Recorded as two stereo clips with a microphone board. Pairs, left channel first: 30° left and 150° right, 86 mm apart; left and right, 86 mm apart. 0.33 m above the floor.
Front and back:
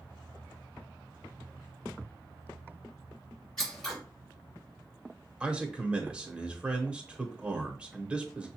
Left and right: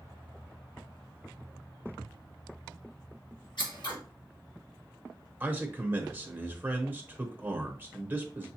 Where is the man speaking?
95° right, 0.8 m.